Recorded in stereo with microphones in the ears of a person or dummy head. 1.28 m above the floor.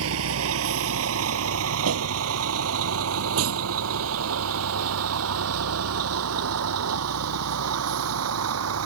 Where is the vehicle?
80° right; by 8.9 s 90° right.